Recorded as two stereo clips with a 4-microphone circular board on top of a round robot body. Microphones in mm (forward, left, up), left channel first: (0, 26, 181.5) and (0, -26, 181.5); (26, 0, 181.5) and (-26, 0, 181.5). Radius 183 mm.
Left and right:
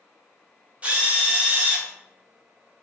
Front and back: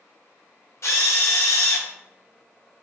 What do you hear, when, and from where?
0.8 s a drill: 25° right, 0.9 m